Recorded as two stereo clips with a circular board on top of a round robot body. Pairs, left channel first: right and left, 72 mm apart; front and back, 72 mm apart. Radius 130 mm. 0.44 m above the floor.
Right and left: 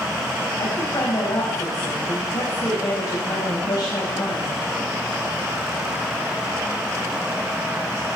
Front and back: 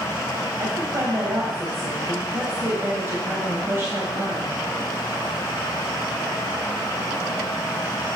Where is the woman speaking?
125° right, 3.5 m.